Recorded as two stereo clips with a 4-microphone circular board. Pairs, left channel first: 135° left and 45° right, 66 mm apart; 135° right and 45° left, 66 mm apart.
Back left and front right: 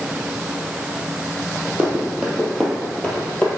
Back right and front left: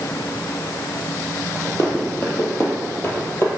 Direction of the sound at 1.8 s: 105° right.